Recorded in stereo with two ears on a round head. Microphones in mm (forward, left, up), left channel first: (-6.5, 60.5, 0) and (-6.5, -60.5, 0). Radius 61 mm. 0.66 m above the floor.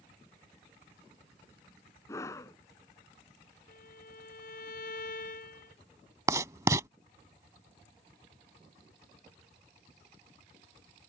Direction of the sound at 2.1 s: 20° left (ahead or behind).